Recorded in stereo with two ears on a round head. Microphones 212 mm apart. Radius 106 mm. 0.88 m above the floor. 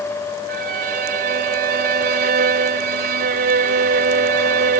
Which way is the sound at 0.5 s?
40° right (ahead or behind).